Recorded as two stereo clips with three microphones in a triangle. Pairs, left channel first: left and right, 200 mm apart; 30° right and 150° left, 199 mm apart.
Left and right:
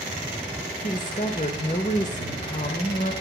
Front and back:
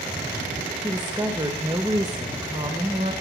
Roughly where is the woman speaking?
Left.